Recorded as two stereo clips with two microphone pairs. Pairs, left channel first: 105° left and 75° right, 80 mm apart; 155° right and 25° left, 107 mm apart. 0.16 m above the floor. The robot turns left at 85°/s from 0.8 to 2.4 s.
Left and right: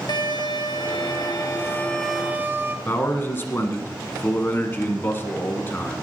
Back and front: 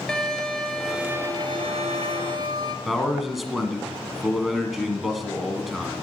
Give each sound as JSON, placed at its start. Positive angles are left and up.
{"t": 0.1, "sound": "a violin", "azimuth_deg": 120, "distance_m": 1.2}
{"t": 2.9, "sound": "a man speaking", "azimuth_deg": 110, "distance_m": 1.5}